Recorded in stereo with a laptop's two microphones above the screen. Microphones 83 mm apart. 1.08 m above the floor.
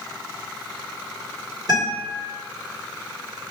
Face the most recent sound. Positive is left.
turn(degrees=-50)  # may be behind; listen again after turning